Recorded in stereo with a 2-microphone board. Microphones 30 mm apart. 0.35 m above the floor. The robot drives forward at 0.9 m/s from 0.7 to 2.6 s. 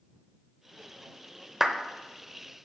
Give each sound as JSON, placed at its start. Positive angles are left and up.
{"t": 1.6, "sound": "a clap", "side_deg": -10, "distance_m": 0.7}